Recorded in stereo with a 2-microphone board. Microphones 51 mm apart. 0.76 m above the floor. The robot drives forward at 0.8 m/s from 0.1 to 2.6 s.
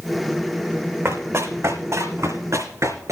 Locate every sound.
1.1 s running footsteps: 55° right (ahead or behind), 2.5 m; by 3.1 s 80° right, 3.5 m